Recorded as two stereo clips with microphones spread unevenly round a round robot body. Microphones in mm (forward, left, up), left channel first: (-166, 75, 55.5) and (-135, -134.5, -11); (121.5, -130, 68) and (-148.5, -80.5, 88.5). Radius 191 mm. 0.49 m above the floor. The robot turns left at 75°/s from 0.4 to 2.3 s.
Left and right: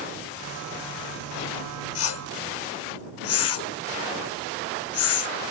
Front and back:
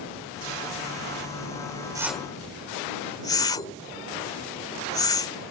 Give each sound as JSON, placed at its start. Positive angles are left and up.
{"t": 1.9, "sound": "a whoosh", "azimuth_deg": 90}